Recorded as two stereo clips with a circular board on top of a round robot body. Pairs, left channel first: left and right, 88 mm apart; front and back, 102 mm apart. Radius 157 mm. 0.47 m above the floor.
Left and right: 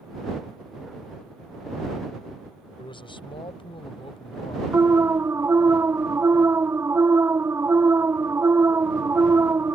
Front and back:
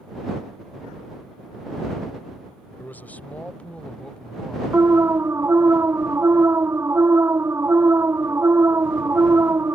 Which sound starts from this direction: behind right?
An alarm, at 4.7 s.